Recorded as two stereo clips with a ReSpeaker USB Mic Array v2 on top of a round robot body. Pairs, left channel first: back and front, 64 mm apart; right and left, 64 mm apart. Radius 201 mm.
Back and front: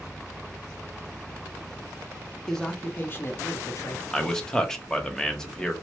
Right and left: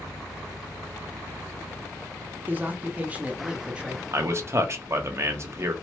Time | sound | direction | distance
2.5 | a man speaking | 105° left | 0.9 m
4.1 | a man speaking | 100° left | 1.0 m